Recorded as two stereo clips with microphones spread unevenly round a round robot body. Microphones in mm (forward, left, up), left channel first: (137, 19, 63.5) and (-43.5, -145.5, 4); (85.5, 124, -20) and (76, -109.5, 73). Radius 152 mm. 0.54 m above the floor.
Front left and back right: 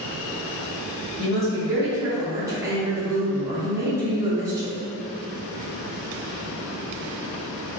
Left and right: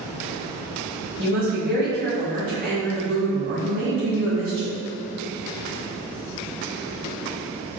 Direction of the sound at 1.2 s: 150° right.